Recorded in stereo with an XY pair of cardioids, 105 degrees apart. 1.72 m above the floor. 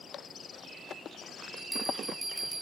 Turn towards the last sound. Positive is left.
turn(degrees=-20)